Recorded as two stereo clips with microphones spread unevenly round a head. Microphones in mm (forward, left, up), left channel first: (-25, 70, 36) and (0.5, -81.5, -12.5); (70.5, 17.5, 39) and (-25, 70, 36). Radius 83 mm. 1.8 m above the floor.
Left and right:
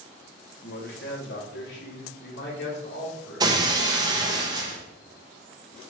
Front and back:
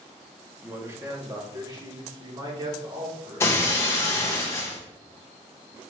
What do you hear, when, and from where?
0.6 s a man speaking: 80° left, 1.6 m; by 3.5 s 110° left, 3.5 m
3.4 s breaking glass: straight ahead, 1.0 m